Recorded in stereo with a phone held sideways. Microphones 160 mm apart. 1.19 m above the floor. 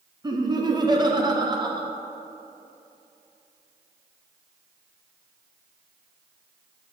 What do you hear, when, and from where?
0.2 s laughter: 25° right (ahead or behind), 0.7 m